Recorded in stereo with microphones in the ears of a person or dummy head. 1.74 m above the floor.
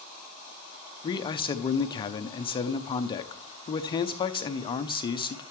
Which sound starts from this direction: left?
A man speaking, at 1.0 s.